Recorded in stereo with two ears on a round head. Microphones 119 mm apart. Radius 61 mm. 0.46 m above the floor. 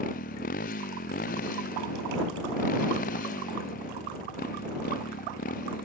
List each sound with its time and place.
0.0 s a motorcycle: 75° left (ahead or behind)